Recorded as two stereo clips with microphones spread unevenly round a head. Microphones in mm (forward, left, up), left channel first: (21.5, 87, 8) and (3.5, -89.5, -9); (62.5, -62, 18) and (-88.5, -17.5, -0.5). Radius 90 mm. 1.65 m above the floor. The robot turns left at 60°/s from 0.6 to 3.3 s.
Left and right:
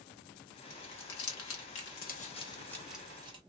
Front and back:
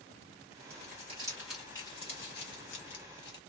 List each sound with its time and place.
0.7 s crumpling: 125° left, 1.4 m; by 3.4 s 30° right, 1.4 m